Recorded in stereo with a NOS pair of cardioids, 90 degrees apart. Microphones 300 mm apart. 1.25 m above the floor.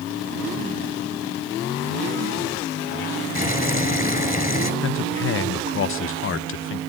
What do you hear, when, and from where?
3.4 s boiling: 25° left, 4 m
4.8 s a man speaking: 40° left, 0.8 m